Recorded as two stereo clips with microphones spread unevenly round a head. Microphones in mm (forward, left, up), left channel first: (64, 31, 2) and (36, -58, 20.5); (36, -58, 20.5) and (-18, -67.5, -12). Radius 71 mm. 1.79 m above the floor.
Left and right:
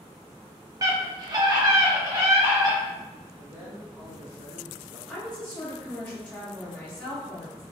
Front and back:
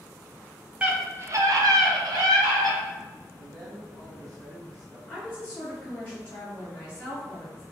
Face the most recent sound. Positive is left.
turn(degrees=-10)